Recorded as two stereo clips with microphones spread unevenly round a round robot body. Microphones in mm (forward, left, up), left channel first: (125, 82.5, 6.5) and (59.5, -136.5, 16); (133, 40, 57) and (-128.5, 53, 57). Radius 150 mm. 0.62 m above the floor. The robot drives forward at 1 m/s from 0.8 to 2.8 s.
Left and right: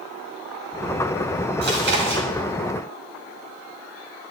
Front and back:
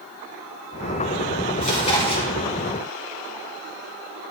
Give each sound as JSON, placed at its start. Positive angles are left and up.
{"t": 1.6, "sound": "chewing", "azimuth_deg": -65, "distance_m": 4.5}